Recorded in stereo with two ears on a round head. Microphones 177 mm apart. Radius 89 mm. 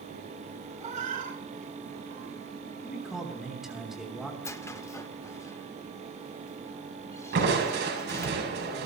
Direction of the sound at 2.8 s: Centre (ahead or behind).